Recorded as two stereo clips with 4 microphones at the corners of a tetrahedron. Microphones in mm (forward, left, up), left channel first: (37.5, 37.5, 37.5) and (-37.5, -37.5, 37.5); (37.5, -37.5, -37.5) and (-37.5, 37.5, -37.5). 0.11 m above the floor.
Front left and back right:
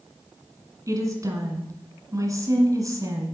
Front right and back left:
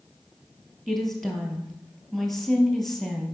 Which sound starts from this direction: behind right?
A woman speaking, at 0.9 s.